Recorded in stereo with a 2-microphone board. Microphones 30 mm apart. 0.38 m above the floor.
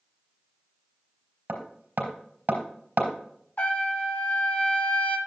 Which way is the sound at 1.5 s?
60° right (ahead or behind).